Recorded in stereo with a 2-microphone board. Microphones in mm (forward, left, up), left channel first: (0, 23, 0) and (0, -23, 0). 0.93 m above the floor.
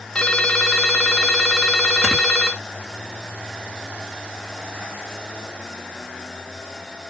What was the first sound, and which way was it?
A ringtone, 20° left (ahead or behind).